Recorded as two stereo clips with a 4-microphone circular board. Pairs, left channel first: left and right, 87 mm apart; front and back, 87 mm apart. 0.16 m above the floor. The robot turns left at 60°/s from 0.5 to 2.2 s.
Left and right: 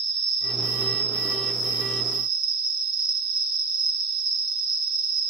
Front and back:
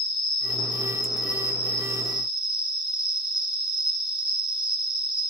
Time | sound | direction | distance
0.0 | an insect | straight ahead | 1.3 m